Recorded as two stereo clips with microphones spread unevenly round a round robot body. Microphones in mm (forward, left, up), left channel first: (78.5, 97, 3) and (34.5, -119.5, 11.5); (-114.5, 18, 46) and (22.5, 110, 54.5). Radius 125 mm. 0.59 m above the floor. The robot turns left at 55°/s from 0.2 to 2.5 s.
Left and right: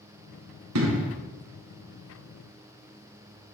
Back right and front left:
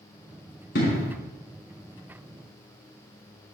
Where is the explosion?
100° right, 2.5 m; by 1.2 s 125° right, 2.5 m.